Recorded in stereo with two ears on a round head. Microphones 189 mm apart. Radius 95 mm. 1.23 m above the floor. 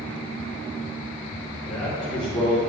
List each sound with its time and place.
1.6 s a man speaking: 5° right (ahead or behind), 2.5 m